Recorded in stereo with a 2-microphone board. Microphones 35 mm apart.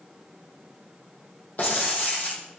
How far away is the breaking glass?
About 4.5 m.